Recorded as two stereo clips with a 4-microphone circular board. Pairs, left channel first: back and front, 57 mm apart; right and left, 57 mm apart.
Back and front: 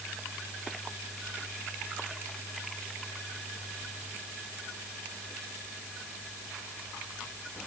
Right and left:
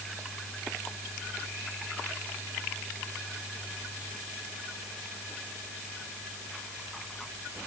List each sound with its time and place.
Only background noise.